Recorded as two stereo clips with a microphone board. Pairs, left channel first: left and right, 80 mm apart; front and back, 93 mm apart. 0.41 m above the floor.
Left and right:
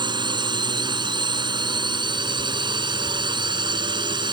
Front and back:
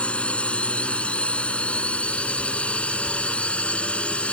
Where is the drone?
75° right.